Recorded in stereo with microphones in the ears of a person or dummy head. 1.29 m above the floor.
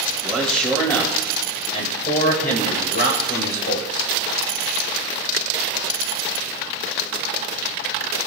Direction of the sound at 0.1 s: Centre (ahead or behind).